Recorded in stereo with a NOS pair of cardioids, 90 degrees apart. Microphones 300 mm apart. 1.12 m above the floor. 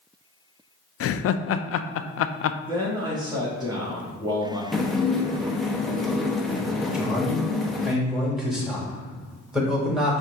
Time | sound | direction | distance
1.0 | laughter | 50° left | 0.5 m
2.7 | a man speaking | 15° right | 1.7 m
4.7 | dishes clattering | straight ahead | 0.8 m
6.9 | a man speaking | straight ahead | 2.0 m